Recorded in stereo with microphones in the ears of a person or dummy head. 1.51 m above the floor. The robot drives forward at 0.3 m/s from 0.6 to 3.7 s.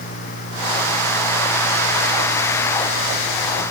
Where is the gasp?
I don't hear a gasp.